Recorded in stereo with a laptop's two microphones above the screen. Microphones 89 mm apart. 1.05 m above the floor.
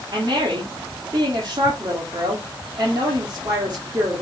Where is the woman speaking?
50° right (ahead or behind), 2 m.